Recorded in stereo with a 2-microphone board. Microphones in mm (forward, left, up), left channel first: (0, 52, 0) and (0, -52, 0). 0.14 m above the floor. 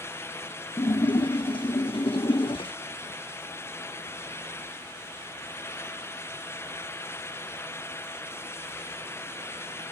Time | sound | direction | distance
0.8 | a splash | 60° left (ahead or behind) | 0.7 m